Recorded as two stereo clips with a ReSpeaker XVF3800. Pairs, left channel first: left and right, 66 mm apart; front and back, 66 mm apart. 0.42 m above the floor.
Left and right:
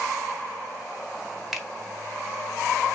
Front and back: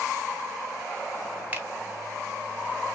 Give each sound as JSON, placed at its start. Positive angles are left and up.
{"t": 1.5, "sound": "a finger snap", "azimuth_deg": -175, "distance_m": 0.9}